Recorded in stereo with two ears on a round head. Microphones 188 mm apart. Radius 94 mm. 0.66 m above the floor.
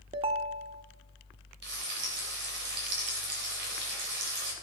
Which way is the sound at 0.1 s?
25° right (ahead or behind).